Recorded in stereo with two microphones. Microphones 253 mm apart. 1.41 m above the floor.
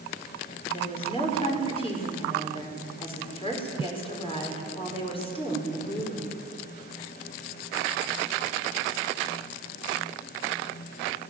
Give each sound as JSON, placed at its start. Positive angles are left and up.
{"t": 0.7, "sound": "a woman speaking", "side_deg": 20, "distance_m": 5.5}